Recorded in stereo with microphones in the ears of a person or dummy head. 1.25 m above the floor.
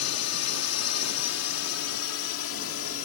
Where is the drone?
75° left (ahead or behind); by 3.1 s 60° left (ahead or behind).